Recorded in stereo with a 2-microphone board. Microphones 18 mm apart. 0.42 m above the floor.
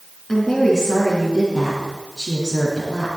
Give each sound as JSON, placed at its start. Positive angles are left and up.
{"t": 0.3, "sound": "a woman speaking", "side_deg": 20, "distance_m": 4.5}